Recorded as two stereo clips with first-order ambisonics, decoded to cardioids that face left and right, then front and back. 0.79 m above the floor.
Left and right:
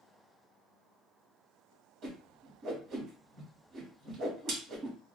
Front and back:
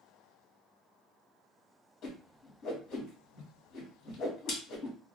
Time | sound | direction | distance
2.0 | a whoosh | 45° right | 1.3 m